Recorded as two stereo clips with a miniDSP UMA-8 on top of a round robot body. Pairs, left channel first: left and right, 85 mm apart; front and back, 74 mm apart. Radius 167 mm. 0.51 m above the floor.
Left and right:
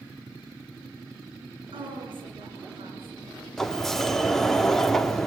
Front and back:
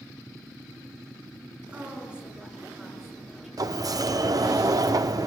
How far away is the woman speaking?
About 7.5 m.